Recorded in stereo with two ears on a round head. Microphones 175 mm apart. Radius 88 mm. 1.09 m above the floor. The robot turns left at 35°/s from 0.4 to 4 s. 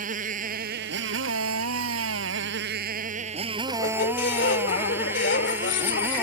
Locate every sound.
0.0 s a motorcycle: 45° right; by 6.2 s 170° right
3.7 s a squeak: 70° left (ahead or behind); by 6.2 s 60° left (ahead or behind)